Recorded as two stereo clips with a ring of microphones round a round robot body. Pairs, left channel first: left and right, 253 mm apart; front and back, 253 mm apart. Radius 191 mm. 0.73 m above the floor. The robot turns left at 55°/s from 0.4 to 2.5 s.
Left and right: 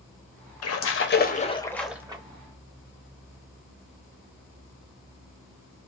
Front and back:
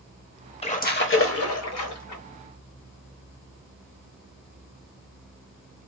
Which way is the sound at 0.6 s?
70° left.